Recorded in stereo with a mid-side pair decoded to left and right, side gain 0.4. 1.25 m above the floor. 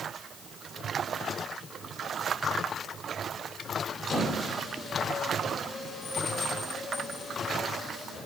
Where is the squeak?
60° left, 2.5 m.